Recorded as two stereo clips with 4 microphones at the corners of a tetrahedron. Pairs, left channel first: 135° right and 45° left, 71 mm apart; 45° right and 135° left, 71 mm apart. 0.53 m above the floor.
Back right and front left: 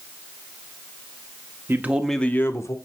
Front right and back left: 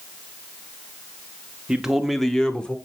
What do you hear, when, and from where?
1.7 s a man speaking: 65° left, 0.9 m; by 2.8 s 115° right, 1.2 m